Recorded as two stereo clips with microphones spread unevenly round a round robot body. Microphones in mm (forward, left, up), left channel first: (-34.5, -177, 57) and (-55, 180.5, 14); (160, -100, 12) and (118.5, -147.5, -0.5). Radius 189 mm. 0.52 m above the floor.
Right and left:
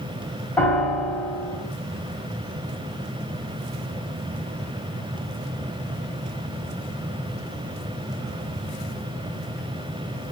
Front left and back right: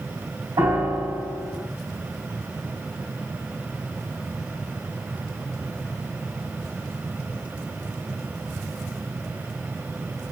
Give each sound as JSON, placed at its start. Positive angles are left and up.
{"t": 0.6, "sound": "a piano", "azimuth_deg": -175, "distance_m": 3.5}